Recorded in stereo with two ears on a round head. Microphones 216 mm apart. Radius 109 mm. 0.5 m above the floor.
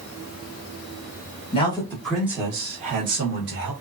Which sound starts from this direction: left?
A man speaking, at 1.5 s.